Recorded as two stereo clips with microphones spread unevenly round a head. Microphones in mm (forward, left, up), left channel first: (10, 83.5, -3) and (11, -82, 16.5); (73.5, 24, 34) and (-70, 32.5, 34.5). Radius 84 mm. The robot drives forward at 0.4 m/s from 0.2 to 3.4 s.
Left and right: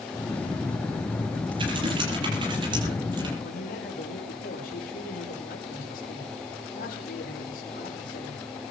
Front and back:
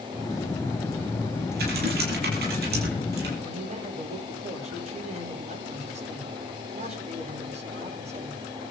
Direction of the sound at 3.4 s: 135° left.